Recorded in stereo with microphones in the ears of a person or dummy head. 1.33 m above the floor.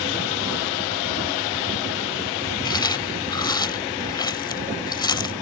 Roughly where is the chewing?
Left.